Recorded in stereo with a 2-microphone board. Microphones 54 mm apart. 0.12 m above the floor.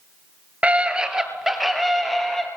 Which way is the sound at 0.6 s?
25° right (ahead or behind).